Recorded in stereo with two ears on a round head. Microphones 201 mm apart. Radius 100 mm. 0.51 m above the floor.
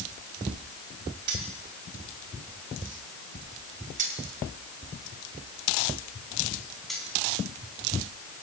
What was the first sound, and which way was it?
Keys jangling, 80° right.